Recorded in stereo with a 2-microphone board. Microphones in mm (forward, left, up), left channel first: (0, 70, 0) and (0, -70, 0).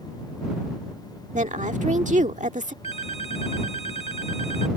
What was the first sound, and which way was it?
A woman speaking, 65° right (ahead or behind).